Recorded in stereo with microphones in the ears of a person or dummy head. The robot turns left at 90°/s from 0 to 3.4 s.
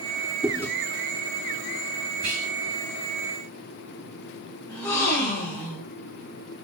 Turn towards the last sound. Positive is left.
turn(degrees=15)  # may be behind; listen again after turning